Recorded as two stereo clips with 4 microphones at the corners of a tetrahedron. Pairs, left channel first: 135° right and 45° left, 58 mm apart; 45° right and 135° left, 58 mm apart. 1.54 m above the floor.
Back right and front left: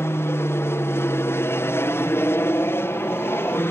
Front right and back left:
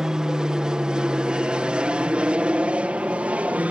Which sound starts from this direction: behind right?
An aircraft, at 0.0 s.